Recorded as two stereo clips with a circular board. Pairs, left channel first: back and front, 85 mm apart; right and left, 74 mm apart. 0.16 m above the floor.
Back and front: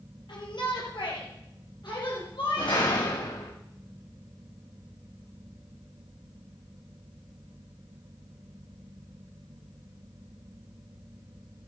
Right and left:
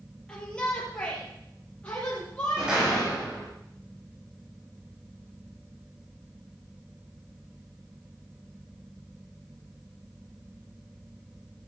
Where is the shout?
165° right, 4.5 m; by 3.1 s 160° right, 6 m.